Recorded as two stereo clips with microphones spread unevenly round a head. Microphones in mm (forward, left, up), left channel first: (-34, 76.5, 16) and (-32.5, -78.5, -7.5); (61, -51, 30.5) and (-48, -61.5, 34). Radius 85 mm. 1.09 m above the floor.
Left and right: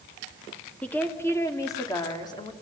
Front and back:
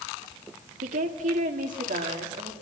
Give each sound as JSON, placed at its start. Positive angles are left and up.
{"t": 0.8, "sound": "a woman speaking", "azimuth_deg": 175, "distance_m": 2.0}